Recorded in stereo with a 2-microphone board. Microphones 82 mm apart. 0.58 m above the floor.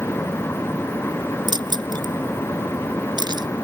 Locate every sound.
1.5 s keys jangling: 65° right (ahead or behind)